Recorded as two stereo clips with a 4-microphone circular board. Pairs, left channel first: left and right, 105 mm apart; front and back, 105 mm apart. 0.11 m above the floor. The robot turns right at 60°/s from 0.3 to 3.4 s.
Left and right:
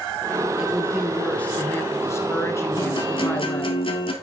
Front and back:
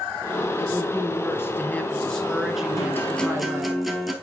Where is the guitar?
55° left, 1.5 m; by 4.1 s 90° left, 1.5 m.